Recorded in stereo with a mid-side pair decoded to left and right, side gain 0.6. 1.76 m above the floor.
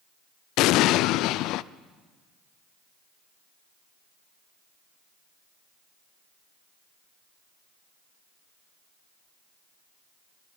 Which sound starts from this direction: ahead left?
An explosion, at 0.6 s.